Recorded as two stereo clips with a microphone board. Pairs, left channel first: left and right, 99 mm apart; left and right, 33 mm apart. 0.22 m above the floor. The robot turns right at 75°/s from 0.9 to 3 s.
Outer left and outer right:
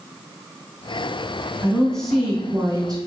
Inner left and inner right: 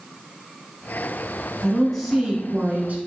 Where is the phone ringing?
No phone ringing in this recording.